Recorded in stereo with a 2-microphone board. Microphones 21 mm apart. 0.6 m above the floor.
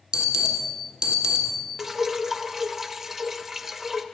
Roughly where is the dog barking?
I don't hear a dog barking.